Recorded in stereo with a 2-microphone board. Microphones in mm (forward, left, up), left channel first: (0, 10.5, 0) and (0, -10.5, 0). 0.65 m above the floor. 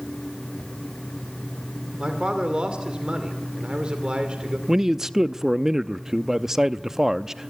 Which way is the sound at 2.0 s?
45° right (ahead or behind).